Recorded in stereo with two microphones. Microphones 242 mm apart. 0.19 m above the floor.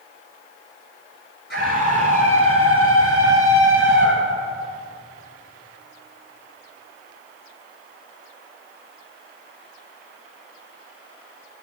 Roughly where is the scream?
Right.